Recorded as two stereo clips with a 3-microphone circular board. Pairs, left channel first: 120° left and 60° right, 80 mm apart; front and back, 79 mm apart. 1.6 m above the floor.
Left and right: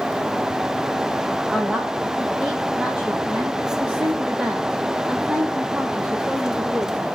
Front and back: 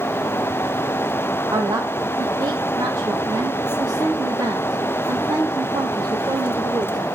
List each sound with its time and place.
1.5 s a woman speaking: 145° right, 1.1 m